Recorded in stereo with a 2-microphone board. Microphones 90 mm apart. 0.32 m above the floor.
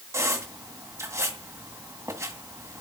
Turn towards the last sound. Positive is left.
turn(degrees=-35)  # may be behind; listen again after turning